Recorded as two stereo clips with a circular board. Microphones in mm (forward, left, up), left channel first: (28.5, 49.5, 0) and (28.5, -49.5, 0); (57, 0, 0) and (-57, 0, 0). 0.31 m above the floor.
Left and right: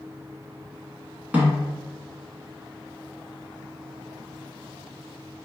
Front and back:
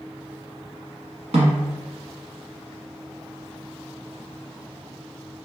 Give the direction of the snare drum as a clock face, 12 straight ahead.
5 o'clock.